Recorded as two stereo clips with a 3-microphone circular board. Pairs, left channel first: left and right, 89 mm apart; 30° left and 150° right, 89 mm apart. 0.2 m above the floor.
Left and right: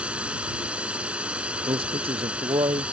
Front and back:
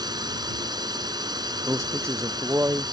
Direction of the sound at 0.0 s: 165° right.